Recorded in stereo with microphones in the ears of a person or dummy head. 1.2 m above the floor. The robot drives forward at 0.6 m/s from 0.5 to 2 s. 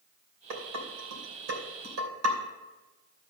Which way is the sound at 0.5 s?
75° right (ahead or behind).